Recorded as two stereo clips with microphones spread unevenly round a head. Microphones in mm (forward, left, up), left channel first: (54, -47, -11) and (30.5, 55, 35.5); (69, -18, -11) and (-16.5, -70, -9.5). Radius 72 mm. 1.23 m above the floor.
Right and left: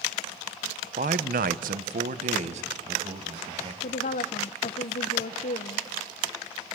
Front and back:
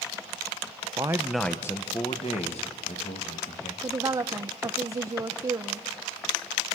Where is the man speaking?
150° left, 0.9 m; by 3.7 s 65° left, 2.5 m.